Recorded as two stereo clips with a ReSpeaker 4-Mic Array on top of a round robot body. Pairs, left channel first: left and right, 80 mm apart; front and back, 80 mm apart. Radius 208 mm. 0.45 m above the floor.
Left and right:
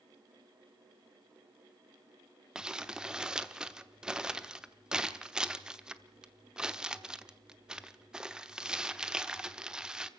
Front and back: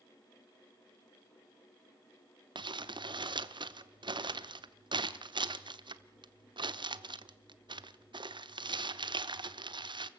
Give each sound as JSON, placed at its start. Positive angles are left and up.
{"t": 2.5, "sound": "crumpling", "azimuth_deg": -170, "distance_m": 1.1}